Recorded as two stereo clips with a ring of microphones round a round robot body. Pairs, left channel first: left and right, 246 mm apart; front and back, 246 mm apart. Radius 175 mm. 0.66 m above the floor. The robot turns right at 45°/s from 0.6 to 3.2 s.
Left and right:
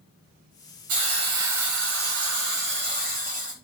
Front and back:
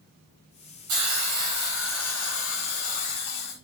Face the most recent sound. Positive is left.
turn(degrees=-35)